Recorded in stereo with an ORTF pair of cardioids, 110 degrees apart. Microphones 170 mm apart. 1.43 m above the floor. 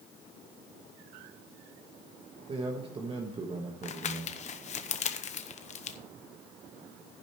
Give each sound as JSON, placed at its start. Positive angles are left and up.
{"t": 2.5, "sound": "a man speaking", "azimuth_deg": -30, "distance_m": 1.4}
{"t": 3.8, "sound": "crumpling", "azimuth_deg": 45, "distance_m": 1.0}